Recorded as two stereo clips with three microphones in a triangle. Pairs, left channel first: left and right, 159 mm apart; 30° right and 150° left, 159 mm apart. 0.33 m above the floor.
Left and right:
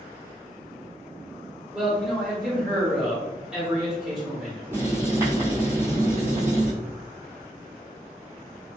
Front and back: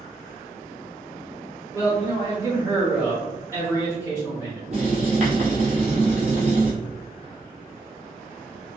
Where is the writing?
165° right, 1.8 m.